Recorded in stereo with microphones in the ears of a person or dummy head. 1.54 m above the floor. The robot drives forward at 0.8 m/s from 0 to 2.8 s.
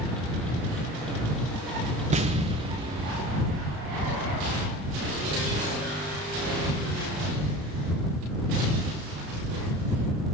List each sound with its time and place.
2.1 s an explosion: 35° right (ahead or behind), 1.6 m; by 4.1 s 25° right (ahead or behind), 2 m